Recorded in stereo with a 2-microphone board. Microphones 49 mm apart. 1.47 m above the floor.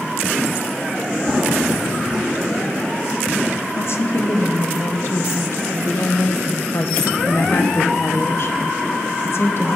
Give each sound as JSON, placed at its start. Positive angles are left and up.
{"t": 1.2, "sound": "running footsteps", "side_deg": -5, "distance_m": 3.5}
{"t": 3.7, "sound": "a woman speaking", "side_deg": 60, "distance_m": 1.1}